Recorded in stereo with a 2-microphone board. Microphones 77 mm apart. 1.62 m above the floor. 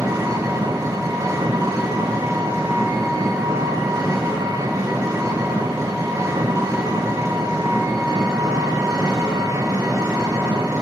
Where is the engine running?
50° right (ahead or behind), 3.5 m.